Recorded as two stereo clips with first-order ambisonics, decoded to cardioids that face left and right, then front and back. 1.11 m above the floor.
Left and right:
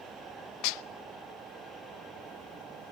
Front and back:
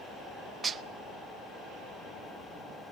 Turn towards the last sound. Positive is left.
turn(degrees=105)